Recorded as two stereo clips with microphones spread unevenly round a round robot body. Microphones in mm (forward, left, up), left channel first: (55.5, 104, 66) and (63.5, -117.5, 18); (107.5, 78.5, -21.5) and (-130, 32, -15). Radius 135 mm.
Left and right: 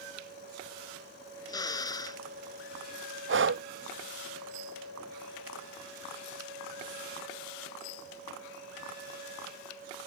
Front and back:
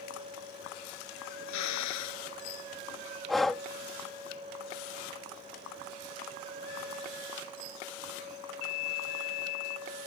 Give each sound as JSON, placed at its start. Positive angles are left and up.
{"t": 1.5, "sound": "a drill", "azimuth_deg": 20}
{"t": 3.3, "sound": "breathing", "azimuth_deg": -80}